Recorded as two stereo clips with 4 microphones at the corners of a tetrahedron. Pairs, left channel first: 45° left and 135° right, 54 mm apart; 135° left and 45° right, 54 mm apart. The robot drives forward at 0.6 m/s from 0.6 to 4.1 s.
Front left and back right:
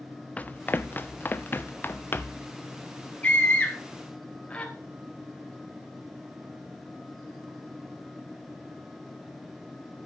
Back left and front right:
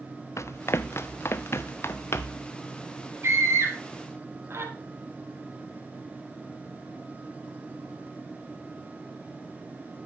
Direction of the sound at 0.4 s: 110° left.